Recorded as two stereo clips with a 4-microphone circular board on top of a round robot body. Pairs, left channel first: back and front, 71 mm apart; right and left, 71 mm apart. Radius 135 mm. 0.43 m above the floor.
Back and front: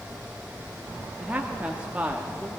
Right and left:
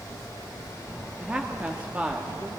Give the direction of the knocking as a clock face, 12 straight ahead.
No knocking in this recording.